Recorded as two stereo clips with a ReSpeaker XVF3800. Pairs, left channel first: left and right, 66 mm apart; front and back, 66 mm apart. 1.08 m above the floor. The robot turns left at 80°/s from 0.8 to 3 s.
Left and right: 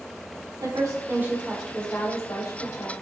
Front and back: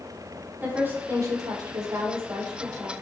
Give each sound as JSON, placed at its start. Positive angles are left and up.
{"t": 0.6, "sound": "a woman speaking", "azimuth_deg": -115, "distance_m": 3.0}